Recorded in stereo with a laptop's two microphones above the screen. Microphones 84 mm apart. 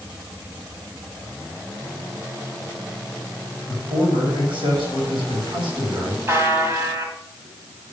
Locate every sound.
3.7 s a man speaking: 85° right, 5 m
6.3 s a buzzer: 30° right (ahead or behind), 1.6 m